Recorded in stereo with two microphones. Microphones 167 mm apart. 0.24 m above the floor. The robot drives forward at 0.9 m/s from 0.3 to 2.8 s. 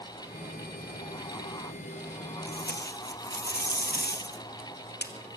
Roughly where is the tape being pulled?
Left.